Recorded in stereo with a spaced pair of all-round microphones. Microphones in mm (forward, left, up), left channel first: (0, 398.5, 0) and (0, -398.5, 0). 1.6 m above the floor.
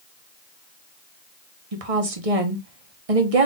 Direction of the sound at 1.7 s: 45° right (ahead or behind).